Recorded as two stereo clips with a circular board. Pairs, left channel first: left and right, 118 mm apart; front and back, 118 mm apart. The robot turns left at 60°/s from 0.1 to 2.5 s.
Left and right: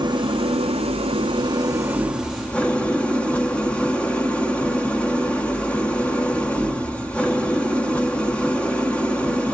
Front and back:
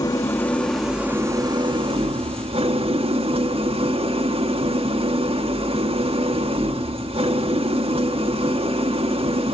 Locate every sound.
0.0 s an engine running: 50° right, 1.5 m; by 9.6 s 165° left, 1.5 m